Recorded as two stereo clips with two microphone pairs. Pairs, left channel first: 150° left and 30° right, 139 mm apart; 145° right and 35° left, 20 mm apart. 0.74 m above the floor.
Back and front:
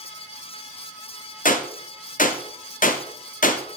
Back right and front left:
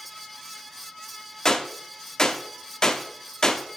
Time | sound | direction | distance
1.4 | a gunshot | 155° left | 0.9 m